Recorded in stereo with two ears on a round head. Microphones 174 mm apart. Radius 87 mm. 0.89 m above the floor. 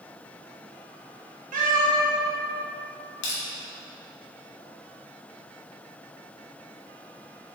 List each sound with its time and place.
1.5 s a cat meowing: 45° right (ahead or behind), 0.8 m
3.2 s crushing: 65° left (ahead or behind), 1.0 m